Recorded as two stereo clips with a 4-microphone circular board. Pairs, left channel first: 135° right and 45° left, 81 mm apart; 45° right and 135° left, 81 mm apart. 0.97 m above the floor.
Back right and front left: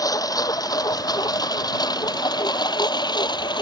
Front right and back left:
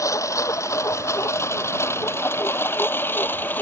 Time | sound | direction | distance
0.0 | a lawn mower | 95° right | ?